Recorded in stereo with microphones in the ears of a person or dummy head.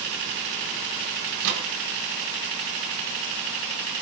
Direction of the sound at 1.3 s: 70° right (ahead or behind).